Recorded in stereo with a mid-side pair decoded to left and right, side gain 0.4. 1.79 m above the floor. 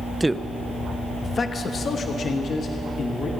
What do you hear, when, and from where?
0.2 s a man speaking: 15° right, 0.6 m; by 3.3 s 65° left, 2 m